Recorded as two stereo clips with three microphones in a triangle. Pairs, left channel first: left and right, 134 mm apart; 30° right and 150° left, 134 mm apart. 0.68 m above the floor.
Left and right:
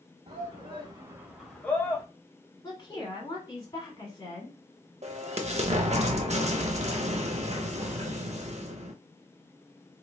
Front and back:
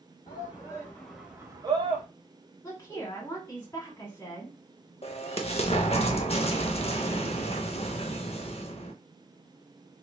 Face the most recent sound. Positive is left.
turn(degrees=-65)